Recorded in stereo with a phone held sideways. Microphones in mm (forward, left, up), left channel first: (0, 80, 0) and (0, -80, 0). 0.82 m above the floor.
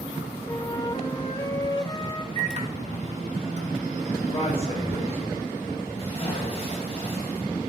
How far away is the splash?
About 3.5 m.